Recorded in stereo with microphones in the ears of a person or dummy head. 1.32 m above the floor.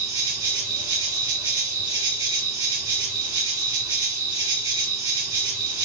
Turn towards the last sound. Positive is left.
turn(degrees=-25)  # may be behind; listen again after turning